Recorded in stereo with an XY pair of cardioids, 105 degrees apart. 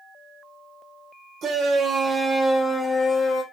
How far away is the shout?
About 0.9 m.